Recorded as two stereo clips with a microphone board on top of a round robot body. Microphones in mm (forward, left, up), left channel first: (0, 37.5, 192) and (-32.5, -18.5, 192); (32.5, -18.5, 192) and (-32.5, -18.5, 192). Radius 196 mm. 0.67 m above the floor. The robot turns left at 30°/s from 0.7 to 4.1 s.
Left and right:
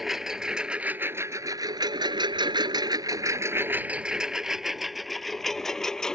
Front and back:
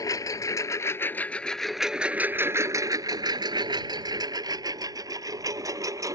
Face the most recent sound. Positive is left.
turn(degrees=145)